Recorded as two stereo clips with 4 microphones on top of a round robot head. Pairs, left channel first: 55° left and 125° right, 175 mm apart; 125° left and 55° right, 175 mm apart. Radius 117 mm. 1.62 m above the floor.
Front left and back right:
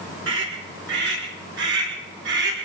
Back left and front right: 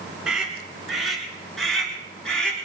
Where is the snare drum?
No snare drum in this recording.